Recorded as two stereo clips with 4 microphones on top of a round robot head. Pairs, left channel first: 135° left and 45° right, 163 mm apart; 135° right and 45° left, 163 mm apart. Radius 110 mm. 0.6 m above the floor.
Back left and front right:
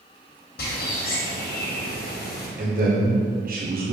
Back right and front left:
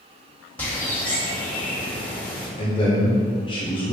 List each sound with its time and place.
0.6 s a bird: 145° left, 2.0 m
2.6 s a man speaking: 75° right, 1.5 m